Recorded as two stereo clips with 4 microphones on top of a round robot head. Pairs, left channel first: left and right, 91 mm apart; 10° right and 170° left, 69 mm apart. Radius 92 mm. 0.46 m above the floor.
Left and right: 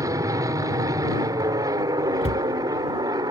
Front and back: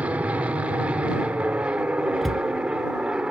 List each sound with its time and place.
0.0 s an aircraft: 125° right; by 3.3 s 115° right
2.2 s a cupboard door: 80° left